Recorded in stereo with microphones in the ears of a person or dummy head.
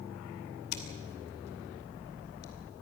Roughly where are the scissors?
Left.